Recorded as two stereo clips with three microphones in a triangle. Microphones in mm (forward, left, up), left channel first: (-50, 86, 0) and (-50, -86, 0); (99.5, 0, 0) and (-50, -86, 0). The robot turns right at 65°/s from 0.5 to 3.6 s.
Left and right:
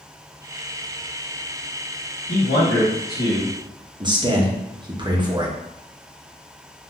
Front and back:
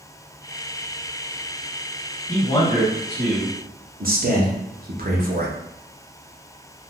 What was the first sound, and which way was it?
A man speaking, 75° left.